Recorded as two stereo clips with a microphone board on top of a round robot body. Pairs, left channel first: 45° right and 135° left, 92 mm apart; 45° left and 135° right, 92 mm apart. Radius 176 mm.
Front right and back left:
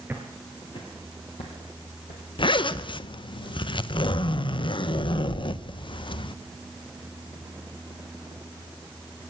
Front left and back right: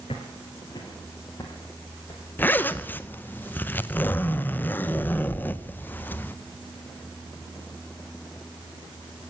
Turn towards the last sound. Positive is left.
turn(degrees=-25)